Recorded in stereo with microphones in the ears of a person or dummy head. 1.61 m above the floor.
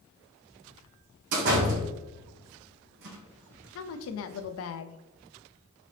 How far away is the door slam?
About 1.4 m.